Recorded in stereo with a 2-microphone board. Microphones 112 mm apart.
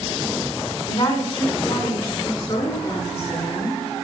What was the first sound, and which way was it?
A woman speaking, 55° left (ahead or behind).